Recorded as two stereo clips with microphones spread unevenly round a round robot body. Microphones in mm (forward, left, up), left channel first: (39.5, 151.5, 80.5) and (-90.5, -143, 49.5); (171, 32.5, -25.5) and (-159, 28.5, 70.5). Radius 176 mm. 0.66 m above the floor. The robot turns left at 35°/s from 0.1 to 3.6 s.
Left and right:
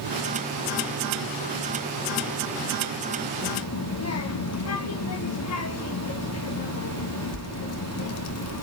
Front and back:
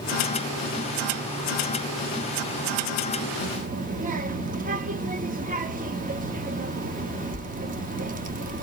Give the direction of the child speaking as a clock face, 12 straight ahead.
8 o'clock.